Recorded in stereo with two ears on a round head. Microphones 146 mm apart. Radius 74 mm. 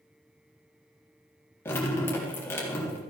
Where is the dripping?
15° left (ahead or behind), 3.5 m.